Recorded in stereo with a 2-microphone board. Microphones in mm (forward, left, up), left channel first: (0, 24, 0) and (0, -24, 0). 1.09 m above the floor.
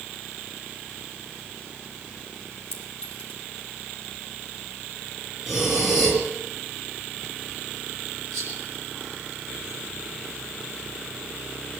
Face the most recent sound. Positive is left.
turn(degrees=-60)  # may be behind; listen again after turning